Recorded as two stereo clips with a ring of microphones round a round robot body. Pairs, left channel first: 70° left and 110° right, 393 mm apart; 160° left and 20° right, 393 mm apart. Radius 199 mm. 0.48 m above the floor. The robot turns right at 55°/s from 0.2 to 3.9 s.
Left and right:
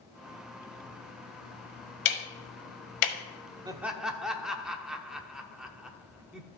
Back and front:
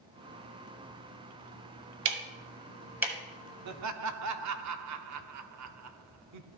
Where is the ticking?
10° left, 1.4 m; by 3.1 s 70° left, 1.4 m.